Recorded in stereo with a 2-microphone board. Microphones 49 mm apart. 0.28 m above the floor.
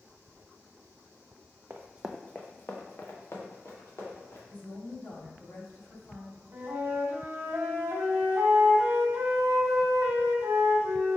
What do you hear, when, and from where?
1.7 s running footsteps: 45° right (ahead or behind), 0.5 m; by 4.4 s 60° left (ahead or behind), 3 m
4.5 s a woman speaking: 40° left (ahead or behind), 1.2 m
6.5 s a flute: 50° right (ahead or behind), 1.1 m